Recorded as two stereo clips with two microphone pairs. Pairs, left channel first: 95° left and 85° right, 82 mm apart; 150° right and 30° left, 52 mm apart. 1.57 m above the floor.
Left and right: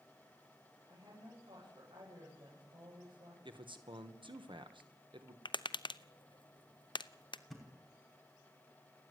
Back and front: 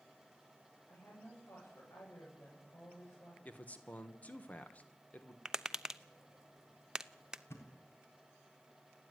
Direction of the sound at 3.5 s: 85° right.